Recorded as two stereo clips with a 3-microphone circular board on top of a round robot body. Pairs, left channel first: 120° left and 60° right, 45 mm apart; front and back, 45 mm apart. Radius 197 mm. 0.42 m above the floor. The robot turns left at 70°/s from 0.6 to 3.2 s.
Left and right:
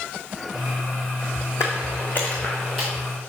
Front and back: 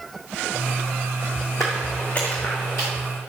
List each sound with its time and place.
1.6 s footsteps: 85° left, 1.2 m; by 2.9 s 30° left, 2 m